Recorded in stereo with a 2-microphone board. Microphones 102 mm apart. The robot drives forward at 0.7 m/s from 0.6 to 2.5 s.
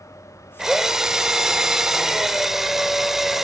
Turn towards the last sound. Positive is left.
turn(degrees=-5)  # may be behind; listen again after turning